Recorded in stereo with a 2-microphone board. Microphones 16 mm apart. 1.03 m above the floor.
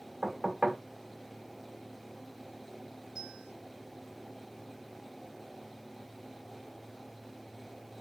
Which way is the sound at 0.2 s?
70° right (ahead or behind).